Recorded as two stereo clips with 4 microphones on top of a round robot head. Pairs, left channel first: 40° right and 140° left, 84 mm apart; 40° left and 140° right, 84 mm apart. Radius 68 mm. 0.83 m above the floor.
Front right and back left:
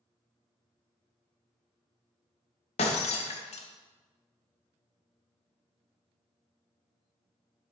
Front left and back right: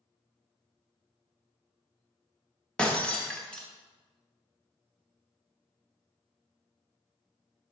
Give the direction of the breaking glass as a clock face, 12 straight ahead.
1 o'clock.